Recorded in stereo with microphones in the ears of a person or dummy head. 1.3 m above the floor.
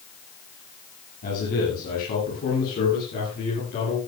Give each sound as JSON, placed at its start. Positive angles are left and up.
{"t": 1.2, "sound": "a man speaking", "side_deg": 50, "distance_m": 8.5}